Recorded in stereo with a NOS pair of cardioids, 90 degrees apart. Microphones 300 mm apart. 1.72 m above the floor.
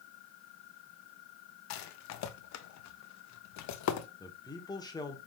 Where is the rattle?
65° left, 0.6 m.